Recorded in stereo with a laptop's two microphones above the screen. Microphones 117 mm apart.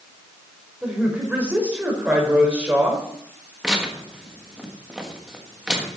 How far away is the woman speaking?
About 4.5 m.